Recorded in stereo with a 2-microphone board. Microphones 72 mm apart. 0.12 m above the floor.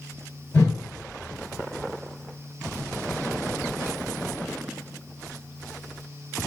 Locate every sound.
0.5 s a whoosh: 60° left (ahead or behind), 1.6 m